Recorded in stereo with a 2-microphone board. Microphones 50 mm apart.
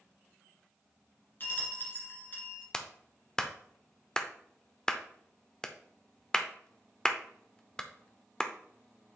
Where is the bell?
40° left (ahead or behind), 2 m.